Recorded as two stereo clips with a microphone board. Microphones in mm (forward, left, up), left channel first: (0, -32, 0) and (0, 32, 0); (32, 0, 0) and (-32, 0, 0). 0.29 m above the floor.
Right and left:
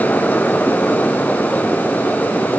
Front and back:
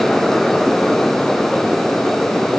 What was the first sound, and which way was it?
Only background noise.